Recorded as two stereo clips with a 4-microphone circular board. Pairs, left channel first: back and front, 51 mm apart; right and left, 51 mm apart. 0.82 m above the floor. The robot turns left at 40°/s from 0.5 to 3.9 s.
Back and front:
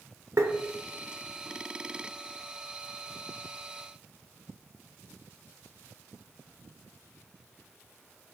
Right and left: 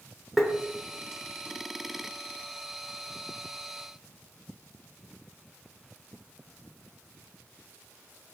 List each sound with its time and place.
0.4 s tapping: 5° right, 1.0 m